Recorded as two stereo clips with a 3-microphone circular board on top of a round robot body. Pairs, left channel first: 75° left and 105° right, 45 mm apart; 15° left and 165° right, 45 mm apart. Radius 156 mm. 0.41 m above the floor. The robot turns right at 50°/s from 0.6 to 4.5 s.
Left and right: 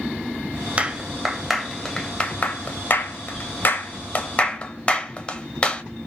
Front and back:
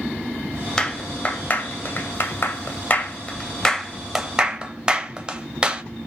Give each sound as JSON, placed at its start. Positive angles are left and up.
{"t": 0.8, "sound": "a clap", "azimuth_deg": -55, "distance_m": 0.9}